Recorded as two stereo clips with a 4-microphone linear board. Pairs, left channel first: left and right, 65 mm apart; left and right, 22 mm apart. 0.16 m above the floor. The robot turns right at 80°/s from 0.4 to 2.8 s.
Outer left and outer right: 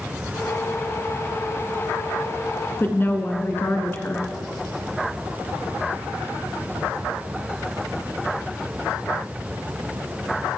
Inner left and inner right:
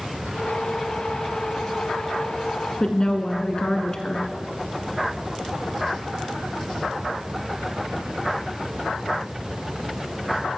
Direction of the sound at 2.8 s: 35° left (ahead or behind).